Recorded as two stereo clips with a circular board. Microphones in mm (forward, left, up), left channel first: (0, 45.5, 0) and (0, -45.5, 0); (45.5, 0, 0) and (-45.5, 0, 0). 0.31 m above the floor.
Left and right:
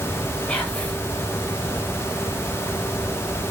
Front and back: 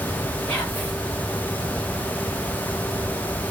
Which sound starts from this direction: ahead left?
Whispering, at 0.5 s.